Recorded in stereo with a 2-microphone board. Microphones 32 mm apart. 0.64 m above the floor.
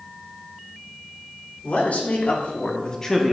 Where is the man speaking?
60° left (ahead or behind), 1.8 m; by 3.3 s 5° left (ahead or behind), 1.0 m.